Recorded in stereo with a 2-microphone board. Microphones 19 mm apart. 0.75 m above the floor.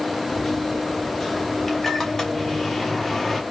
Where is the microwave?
20° left (ahead or behind), 1.1 m.